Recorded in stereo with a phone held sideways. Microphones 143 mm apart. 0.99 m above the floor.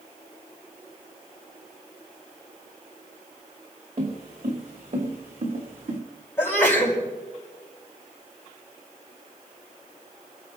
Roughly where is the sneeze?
Centre.